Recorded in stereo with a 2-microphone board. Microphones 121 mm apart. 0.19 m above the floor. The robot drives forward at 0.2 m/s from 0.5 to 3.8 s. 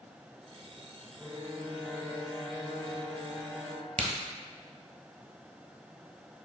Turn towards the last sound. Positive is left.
turn(degrees=-80)